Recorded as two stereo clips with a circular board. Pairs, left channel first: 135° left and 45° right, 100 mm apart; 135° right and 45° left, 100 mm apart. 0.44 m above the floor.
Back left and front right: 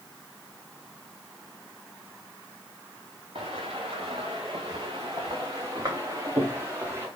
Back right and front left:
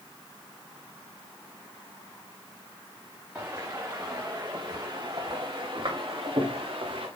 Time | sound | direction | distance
3.4 | footsteps | 20° right | 3 m